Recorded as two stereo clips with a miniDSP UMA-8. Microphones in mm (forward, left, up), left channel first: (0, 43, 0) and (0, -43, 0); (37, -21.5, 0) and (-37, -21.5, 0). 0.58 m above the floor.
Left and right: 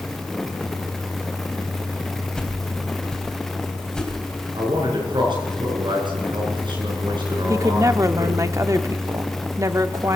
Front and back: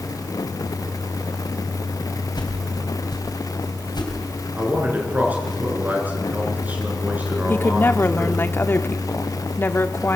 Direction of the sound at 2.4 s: 10° left.